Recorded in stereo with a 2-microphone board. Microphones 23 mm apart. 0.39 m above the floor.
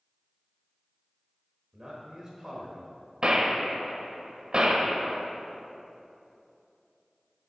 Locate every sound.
1.7 s a man speaking: 25° right (ahead or behind), 1.3 m
3.2 s a gunshot: 40° right (ahead or behind), 0.8 m